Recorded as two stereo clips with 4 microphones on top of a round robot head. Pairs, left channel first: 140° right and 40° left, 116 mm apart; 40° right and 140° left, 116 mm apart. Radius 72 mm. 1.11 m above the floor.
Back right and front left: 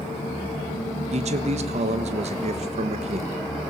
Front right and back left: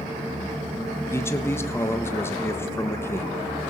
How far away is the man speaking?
About 1.3 m.